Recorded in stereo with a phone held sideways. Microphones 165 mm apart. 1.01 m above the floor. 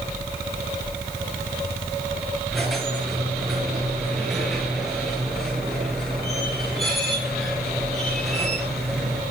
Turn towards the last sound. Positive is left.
turn(degrees=0)  # may be behind; listen again after turning